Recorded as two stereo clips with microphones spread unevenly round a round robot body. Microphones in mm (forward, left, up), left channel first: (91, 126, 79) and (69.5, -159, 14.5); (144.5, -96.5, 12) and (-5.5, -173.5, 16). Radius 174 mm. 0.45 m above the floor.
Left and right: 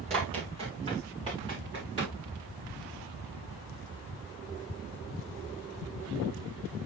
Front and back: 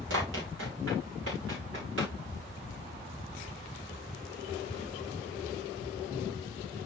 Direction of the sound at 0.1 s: 170° right.